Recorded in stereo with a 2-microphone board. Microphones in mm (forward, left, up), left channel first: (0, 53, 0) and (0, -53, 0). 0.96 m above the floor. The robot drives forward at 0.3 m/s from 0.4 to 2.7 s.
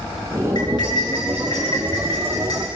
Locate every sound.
0.6 s cutlery clinking: 45° left (ahead or behind), 7 m; by 2.7 s 40° left (ahead or behind), 7.5 m